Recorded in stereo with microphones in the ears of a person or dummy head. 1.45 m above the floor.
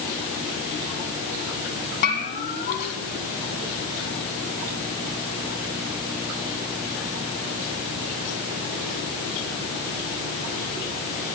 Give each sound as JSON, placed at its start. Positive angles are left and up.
{"t": 2.0, "sound": "a bell", "side_deg": 45, "distance_m": 3.5}